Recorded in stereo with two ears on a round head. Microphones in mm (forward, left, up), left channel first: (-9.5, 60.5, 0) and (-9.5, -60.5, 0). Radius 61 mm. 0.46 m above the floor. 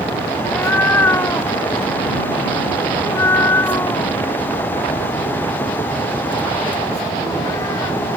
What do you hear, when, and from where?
0.4 s a cat meowing: 15° left (ahead or behind); by 8.0 s 20° left (ahead or behind)